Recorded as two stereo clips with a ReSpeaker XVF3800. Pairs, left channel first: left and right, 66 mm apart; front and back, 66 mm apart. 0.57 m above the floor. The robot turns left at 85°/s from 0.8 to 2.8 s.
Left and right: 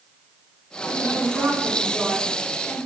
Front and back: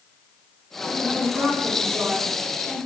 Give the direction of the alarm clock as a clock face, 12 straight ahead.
I don't hear an alarm clock.